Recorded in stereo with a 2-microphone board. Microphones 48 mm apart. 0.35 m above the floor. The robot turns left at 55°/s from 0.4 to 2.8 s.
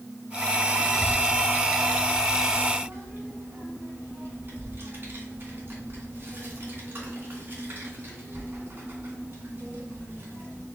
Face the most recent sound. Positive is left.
turn(degrees=-45)  # may be behind; listen again after turning